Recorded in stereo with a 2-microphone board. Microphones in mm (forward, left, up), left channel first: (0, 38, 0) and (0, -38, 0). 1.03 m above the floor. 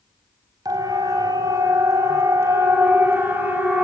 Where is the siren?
55° right (ahead or behind), 4.5 m; by 3.9 s 20° right (ahead or behind), 5 m.